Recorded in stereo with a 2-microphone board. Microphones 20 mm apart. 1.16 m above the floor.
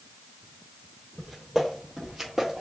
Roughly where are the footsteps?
Centre.